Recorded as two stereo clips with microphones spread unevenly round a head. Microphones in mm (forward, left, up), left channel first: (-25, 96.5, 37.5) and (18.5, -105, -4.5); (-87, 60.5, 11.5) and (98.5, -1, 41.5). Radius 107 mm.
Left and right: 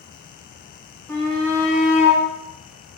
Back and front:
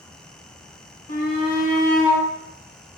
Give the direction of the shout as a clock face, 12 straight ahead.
6 o'clock.